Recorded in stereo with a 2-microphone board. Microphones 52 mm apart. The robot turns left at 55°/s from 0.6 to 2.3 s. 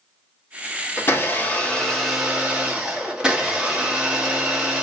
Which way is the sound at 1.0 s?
60° left.